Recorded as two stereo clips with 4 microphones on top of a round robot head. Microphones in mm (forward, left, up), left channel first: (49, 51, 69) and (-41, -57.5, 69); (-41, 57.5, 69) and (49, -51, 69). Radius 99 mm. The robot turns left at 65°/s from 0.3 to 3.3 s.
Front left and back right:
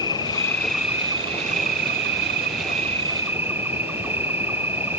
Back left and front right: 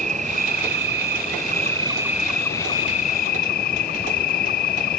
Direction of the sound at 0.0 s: 10° right.